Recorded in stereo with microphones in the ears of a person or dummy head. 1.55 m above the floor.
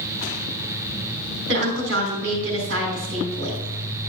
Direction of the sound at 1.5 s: 65° right (ahead or behind).